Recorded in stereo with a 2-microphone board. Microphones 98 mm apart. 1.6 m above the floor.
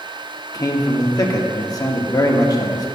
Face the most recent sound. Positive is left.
turn(degrees=35)  # may be behind; listen again after turning